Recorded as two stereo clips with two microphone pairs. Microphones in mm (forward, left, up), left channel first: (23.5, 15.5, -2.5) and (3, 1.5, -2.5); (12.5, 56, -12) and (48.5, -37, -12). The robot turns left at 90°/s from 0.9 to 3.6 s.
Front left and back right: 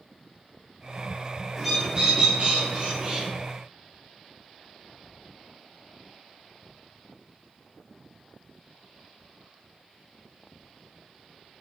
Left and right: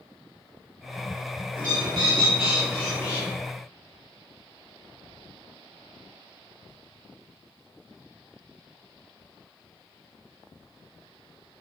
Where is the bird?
60° right, 1.5 m; by 3.3 s 145° left, 1.5 m.